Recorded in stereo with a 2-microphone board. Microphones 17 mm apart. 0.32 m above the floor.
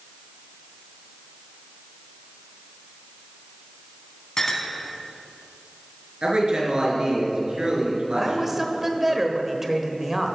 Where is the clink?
40° left (ahead or behind), 1.8 m.